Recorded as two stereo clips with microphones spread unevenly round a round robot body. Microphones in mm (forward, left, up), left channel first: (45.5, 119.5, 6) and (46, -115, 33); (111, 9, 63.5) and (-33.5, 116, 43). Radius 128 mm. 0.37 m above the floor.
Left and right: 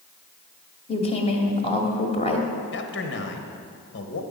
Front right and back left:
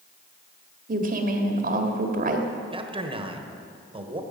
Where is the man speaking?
95° left, 1.5 m.